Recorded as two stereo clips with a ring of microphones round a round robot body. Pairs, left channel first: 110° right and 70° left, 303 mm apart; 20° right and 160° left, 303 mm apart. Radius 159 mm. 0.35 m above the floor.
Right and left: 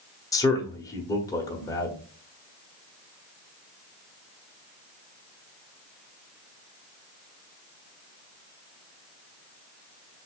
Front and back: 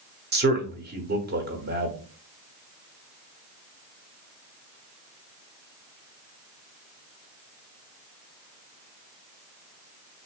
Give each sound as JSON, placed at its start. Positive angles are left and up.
{"t": 0.3, "sound": "a man speaking", "azimuth_deg": 175, "distance_m": 1.3}